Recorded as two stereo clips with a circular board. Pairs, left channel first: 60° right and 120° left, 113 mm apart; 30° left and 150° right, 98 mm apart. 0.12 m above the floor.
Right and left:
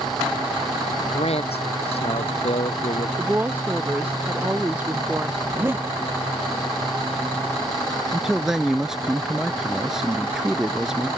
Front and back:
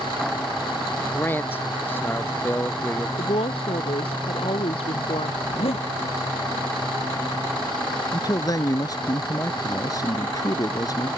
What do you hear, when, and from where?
1.1 s a man speaking: 35° right
3.2 s a woman speaking: 45° left
5.4 s a zipper: 50° left
8.1 s a man speaking: 35° left